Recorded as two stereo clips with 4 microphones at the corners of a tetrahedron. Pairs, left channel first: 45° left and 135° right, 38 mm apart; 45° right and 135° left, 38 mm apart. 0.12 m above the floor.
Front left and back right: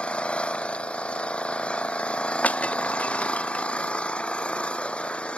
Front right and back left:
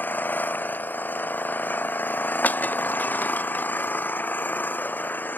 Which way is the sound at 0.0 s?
15° right.